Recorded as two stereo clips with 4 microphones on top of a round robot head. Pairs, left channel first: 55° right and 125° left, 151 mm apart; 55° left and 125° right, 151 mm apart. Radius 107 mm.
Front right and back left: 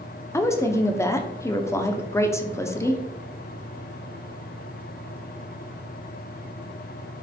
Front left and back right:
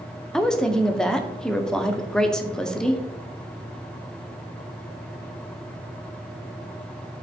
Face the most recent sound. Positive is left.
turn(degrees=-20)